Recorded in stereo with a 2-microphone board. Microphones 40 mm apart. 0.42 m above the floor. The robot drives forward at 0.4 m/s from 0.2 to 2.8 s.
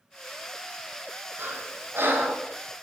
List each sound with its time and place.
1.4 s breathing: 70° right (ahead or behind), 1.8 m; by 2.4 s 60° right (ahead or behind), 1.9 m